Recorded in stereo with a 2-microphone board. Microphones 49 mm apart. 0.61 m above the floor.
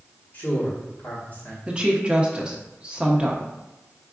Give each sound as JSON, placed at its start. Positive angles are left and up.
{"t": 0.3, "sound": "a man speaking", "side_deg": 50, "distance_m": 1.5}
{"t": 1.7, "sound": "a woman speaking", "side_deg": -20, "distance_m": 0.8}